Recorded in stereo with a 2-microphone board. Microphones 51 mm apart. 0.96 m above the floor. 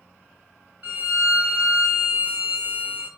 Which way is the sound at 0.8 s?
25° right (ahead or behind).